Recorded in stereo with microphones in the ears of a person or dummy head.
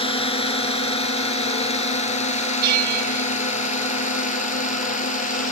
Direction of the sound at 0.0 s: 35° left (ahead or behind).